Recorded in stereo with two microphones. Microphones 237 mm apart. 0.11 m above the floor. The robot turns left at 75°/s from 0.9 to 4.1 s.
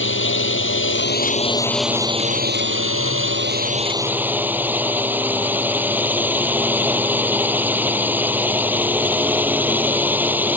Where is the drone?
70° left; by 10.6 s 170° right.